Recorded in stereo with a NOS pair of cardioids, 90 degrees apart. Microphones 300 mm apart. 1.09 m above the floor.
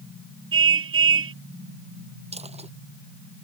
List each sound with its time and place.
0.5 s a car horn: 45° right
2.3 s a dropped coin: 20° right